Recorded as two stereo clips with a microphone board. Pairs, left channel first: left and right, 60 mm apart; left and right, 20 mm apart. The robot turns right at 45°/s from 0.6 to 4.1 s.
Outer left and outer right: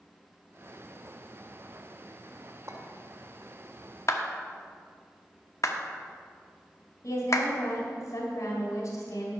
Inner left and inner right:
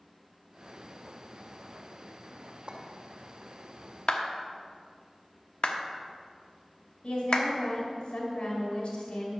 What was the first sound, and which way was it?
A clink, 60° right (ahead or behind).